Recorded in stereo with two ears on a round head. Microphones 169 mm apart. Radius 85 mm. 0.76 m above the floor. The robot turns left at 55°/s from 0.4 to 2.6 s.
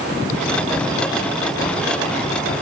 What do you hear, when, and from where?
Only background noise.